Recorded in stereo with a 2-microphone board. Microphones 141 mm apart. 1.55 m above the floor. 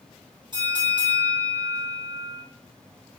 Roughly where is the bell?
Right.